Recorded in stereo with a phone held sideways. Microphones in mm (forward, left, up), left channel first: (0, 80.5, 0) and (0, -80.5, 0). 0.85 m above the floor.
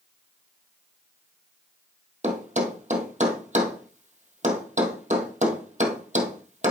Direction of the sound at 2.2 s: 50° right (ahead or behind).